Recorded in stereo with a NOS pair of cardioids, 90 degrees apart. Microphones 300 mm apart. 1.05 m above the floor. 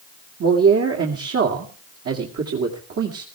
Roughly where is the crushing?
I don't hear crushing.